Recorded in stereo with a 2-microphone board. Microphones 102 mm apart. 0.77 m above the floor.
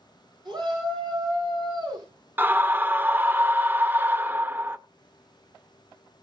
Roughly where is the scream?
Centre.